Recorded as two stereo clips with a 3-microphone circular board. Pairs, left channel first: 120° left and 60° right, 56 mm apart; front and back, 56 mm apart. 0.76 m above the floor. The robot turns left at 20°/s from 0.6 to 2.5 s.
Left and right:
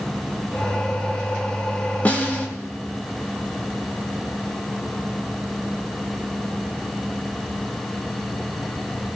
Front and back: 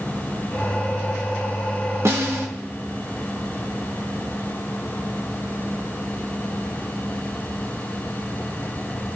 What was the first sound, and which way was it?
A snare drum, 175° left.